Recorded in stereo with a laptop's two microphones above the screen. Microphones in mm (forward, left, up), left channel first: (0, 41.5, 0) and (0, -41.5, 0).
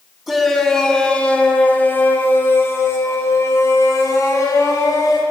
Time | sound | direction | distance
0.3 | a shout | 5° right (ahead or behind) | 2 m